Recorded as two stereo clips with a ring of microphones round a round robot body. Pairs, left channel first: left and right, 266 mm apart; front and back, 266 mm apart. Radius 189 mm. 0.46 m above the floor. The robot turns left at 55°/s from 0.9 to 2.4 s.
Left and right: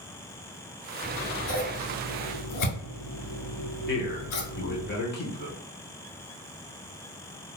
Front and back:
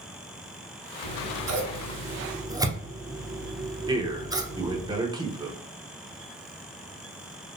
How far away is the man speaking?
About 1.1 m.